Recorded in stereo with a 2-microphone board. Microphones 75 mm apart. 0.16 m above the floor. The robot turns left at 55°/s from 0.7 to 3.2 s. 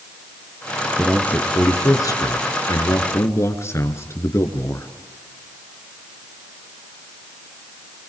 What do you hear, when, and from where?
1.0 s a man speaking: 170° left, 2 m; by 4.9 s 50° left, 2 m